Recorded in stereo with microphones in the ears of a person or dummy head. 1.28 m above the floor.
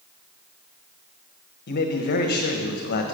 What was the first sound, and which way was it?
A man speaking, 50° left (ahead or behind).